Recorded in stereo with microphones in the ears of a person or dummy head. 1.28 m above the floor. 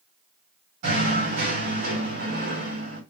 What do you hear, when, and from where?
0.8 s knocking: 55° right (ahead or behind), 2 m